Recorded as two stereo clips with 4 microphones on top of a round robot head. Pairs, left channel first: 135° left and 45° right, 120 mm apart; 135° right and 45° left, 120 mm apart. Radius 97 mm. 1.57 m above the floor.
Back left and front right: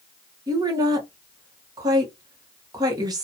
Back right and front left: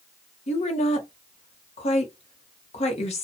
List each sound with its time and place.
0.5 s a woman speaking: 100° right, 1.1 m